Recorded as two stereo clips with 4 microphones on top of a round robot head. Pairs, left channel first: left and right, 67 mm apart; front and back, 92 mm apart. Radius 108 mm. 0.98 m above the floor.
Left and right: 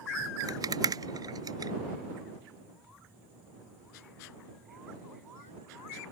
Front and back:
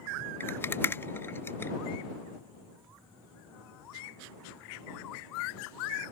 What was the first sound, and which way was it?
A rattle, 65° right.